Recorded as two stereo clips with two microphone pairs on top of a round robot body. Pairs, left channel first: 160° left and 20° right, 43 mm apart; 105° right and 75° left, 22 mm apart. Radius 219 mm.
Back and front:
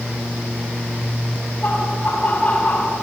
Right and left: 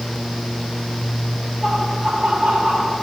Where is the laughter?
90° left, 5.5 m; by 3.0 s 100° left, 4.5 m.